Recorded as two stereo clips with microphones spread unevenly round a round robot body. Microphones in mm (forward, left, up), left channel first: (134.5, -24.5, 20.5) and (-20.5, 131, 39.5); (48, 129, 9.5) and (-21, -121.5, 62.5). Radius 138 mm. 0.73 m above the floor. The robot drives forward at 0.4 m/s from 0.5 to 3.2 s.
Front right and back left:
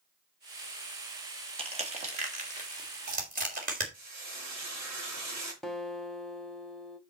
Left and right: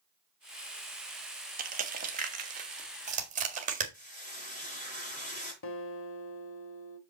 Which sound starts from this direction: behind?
Crushing, at 1.6 s.